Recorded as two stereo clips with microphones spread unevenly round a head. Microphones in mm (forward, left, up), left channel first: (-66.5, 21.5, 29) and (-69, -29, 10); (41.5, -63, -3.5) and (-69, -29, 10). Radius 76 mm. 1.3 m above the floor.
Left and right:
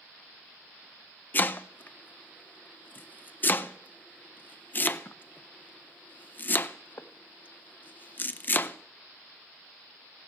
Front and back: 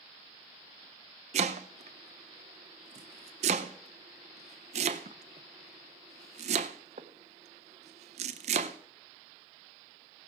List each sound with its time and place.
1.3 s chopping: 130° left, 0.5 m